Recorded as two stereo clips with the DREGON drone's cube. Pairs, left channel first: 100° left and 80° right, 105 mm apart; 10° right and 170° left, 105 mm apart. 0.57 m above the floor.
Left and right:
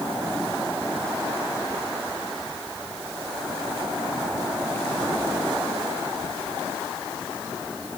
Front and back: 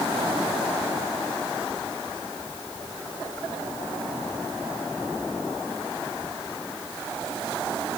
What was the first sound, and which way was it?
Only background noise.